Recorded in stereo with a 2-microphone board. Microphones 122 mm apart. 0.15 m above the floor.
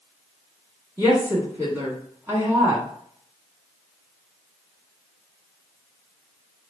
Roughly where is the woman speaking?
Centre.